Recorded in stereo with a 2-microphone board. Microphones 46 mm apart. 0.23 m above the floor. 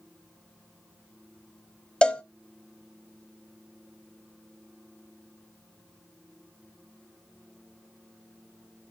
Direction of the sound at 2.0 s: 20° left (ahead or behind).